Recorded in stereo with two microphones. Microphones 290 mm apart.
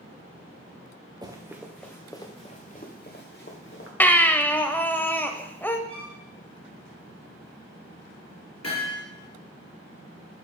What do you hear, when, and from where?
1.2 s running footsteps: 15° right (ahead or behind), 1.2 m; by 3.9 s 50° left (ahead or behind), 1.9 m
4.0 s a baby crying: 5° left (ahead or behind), 0.6 m
5.9 s a violin: 20° right (ahead or behind), 1.7 m
8.6 s hammering: 70° left (ahead or behind), 3 m